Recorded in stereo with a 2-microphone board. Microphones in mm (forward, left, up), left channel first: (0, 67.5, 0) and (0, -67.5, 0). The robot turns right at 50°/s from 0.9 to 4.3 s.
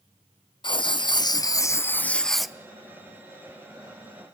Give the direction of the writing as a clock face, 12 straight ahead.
9 o'clock.